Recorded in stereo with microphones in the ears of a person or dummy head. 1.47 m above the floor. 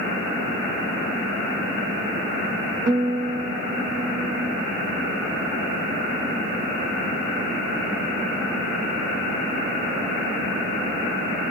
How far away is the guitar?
About 1.3 m.